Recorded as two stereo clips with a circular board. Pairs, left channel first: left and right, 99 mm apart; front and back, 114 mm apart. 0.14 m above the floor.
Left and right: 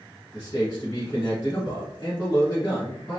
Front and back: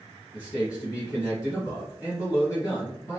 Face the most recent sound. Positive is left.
turn(degrees=40)